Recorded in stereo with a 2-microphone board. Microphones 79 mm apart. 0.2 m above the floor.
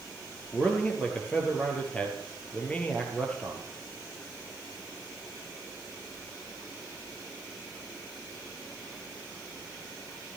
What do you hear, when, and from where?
0.5 s a man speaking: 15° left (ahead or behind), 3.5 m